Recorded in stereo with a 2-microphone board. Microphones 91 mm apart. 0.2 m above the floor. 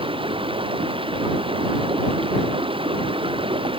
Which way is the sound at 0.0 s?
75° right (ahead or behind).